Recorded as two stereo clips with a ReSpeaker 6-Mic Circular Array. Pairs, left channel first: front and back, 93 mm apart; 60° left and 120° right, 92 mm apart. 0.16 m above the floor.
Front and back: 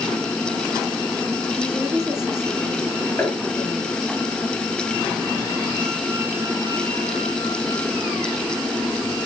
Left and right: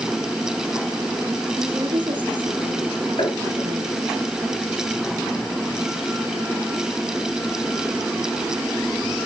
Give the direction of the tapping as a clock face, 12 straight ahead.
10 o'clock.